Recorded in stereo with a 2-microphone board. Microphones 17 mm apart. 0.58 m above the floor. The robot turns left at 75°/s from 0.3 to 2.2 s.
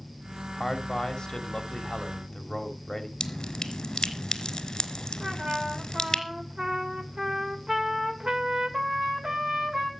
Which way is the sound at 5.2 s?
50° right (ahead or behind).